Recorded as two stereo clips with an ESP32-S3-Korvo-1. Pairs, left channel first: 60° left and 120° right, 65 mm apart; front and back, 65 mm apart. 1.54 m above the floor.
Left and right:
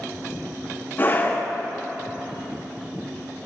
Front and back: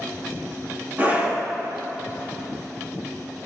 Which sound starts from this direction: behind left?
A scream, at 1.0 s.